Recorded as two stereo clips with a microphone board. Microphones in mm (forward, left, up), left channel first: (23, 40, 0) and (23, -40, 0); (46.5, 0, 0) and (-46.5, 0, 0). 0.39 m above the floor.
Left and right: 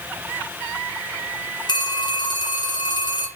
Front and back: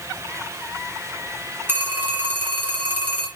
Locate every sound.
1.7 s a phone ringing: 115° left, 3 m